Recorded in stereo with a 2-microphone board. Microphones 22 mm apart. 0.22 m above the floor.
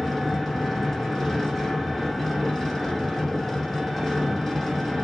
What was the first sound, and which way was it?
An engine running, 10° left (ahead or behind).